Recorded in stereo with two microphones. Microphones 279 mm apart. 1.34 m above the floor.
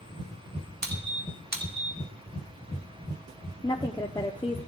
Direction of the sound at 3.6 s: 15° left (ahead or behind).